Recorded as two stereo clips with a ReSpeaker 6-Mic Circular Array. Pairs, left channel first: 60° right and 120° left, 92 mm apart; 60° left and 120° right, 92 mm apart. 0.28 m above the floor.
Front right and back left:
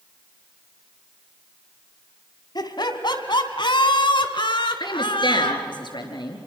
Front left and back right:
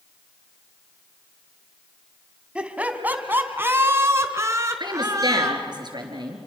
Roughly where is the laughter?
Ahead right.